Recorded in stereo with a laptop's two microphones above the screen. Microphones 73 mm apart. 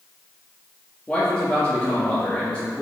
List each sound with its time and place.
1.1 s a man speaking: 15° left (ahead or behind), 1.7 m